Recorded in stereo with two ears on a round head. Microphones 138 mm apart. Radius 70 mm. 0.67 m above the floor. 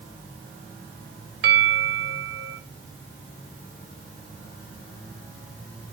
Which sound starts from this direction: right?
A bell, at 1.4 s.